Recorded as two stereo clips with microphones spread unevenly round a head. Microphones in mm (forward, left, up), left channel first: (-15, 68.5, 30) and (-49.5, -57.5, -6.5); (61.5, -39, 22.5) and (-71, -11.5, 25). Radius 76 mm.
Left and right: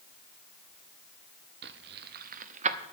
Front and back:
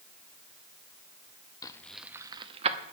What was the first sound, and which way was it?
Keys jangling, 75° right.